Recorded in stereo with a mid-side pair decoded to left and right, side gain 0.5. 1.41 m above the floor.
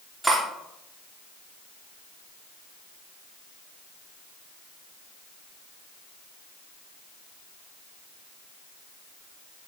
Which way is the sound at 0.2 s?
15° right.